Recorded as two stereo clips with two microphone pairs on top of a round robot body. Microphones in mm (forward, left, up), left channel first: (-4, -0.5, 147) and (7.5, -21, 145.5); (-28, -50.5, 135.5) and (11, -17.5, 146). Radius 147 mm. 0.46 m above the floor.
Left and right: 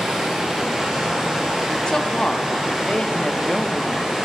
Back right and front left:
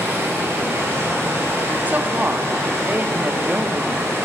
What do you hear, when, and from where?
0.0 s running water: 5° left, 1.5 m
1.9 s a woman speaking: 95° left, 0.8 m